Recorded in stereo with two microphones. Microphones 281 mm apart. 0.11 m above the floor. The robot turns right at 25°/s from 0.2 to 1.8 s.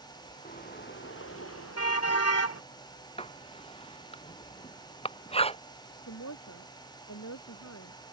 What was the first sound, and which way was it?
A car horn, 30° left.